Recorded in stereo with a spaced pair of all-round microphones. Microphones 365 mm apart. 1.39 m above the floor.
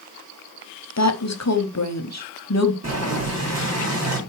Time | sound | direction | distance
1.0 | a woman speaking | 45° left (ahead or behind) | 0.8 m
2.8 | boiling | 45° right (ahead or behind) | 2.5 m